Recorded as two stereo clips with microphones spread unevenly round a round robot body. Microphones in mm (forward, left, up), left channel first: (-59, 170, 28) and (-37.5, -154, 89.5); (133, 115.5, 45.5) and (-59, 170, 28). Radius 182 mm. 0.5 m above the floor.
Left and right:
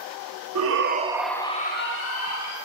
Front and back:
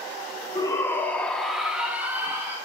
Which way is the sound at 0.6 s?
90° right.